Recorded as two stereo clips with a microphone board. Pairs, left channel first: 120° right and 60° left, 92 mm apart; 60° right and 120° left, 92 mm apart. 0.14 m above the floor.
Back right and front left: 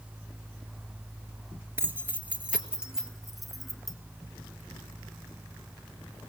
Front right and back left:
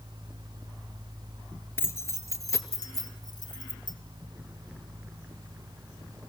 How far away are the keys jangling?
About 1.8 m.